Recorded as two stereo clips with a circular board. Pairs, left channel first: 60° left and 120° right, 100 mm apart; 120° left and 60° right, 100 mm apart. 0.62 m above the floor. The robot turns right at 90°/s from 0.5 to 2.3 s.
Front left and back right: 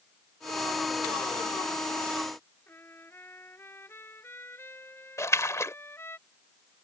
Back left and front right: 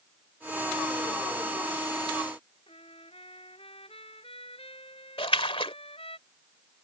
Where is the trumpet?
125° left.